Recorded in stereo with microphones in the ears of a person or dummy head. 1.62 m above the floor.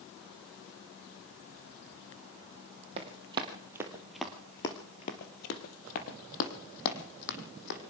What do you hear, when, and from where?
3.0 s running footsteps: 25° right (ahead or behind), 2.5 m; by 7.8 s 60° left (ahead or behind), 4 m